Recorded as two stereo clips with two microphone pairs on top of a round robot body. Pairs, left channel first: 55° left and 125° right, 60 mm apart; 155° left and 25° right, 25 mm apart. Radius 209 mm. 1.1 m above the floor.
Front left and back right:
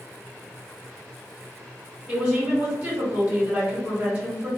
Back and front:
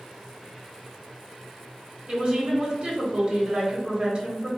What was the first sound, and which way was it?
A woman speaking, 50° right.